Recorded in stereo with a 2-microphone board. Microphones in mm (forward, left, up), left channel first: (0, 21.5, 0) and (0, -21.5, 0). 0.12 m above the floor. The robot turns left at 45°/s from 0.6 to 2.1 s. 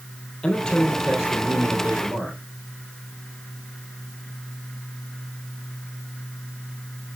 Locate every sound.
0.4 s a man speaking: 20° left, 3 m; by 2.4 s 50° right, 3 m